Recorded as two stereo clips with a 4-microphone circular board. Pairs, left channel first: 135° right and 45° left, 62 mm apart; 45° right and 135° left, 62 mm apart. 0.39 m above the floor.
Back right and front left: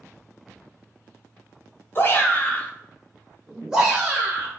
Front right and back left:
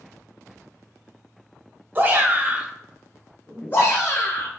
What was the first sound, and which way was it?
A shout, straight behind.